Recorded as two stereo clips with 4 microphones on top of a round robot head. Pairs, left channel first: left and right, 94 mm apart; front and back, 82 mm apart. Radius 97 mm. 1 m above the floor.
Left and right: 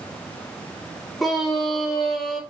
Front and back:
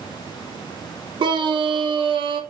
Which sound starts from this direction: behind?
A scream, at 1.2 s.